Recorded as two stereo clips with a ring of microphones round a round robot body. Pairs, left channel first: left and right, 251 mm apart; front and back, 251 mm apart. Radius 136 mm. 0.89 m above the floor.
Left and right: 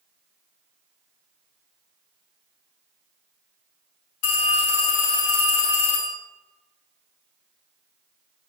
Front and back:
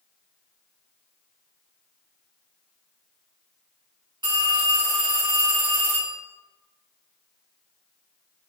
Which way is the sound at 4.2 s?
105° left.